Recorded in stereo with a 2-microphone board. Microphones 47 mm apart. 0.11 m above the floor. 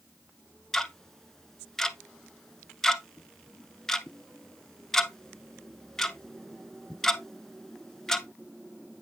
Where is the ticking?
10° left (ahead or behind), 0.6 m.